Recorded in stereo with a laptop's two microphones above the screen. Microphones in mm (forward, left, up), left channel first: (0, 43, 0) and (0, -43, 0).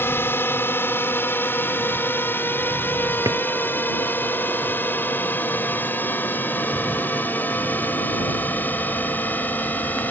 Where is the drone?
25° left (ahead or behind); by 10.1 s 20° left (ahead or behind).